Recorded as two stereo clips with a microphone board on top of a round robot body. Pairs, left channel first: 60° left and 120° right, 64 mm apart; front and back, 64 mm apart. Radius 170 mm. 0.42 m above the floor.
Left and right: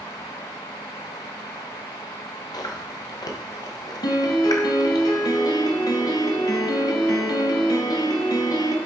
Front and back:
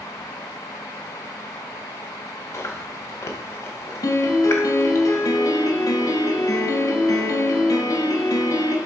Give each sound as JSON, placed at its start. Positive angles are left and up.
{"t": 2.5, "sound": "chewing", "azimuth_deg": 50, "distance_m": 1.0}
{"t": 4.0, "sound": "a piano", "azimuth_deg": 35, "distance_m": 0.7}